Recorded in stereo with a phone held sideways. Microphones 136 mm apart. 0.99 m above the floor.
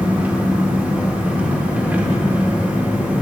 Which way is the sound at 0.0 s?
10° right (ahead or behind).